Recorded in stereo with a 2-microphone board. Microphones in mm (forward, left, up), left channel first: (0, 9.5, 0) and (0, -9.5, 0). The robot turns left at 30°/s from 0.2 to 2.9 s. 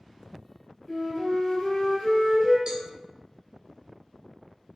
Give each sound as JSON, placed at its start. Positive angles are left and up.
{"t": 0.9, "sound": "a flute", "azimuth_deg": 150, "distance_m": 1.2}
{"t": 2.7, "sound": "a cowbell", "side_deg": -50, "distance_m": 0.6}